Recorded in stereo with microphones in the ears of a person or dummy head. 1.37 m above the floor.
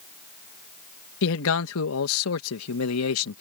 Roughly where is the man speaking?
Left.